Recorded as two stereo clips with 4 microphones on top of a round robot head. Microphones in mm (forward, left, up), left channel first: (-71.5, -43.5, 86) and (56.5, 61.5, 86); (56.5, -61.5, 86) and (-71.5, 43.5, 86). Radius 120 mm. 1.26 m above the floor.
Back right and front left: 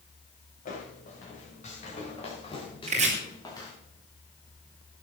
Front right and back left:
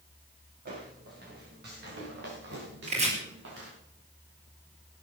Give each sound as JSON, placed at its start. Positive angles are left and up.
{"t": 0.7, "sound": "footsteps", "azimuth_deg": 175, "distance_m": 7.0}
{"t": 2.9, "sound": "chopping", "azimuth_deg": 90, "distance_m": 4.5}